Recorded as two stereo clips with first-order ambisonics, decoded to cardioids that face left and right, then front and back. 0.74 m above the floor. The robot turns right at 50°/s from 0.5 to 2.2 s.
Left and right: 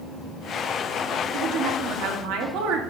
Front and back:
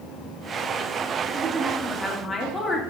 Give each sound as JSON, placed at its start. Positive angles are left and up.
{"t": 1.3, "sound": "a woman speaking", "azimuth_deg": -120, "distance_m": 1.9}